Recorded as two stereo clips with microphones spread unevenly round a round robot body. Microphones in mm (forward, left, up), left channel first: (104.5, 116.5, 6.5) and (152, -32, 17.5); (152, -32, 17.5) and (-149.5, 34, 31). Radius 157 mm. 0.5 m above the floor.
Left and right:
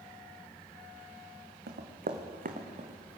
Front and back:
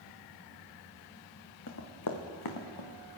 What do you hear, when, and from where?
1.7 s running footsteps: 65° right, 1.8 m; by 3.2 s 25° right, 2 m